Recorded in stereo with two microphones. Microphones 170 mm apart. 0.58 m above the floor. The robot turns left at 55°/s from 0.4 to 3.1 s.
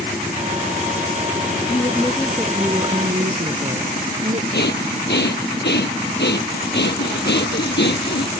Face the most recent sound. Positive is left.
turn(degrees=85)